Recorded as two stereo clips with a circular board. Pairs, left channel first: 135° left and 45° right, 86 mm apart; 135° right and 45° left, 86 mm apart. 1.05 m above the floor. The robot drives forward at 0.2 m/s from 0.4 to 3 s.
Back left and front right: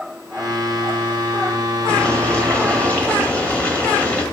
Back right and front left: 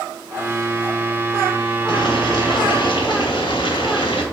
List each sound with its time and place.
1.9 s boiling: 150° right, 2 m